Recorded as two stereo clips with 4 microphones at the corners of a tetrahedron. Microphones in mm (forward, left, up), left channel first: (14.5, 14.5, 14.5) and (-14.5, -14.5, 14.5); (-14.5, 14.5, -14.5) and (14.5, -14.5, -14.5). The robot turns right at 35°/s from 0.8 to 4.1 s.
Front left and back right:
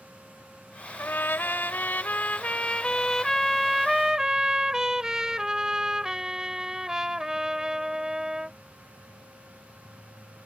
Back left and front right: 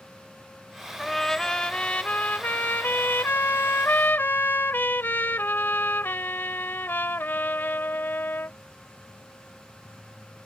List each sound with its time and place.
1.0 s a trumpet: 45° left; by 8.6 s 155° left